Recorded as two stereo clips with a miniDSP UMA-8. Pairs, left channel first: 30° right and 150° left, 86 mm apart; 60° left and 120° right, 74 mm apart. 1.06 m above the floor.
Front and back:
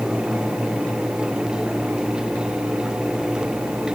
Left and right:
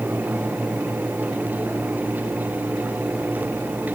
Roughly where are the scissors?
I don't hear scissors.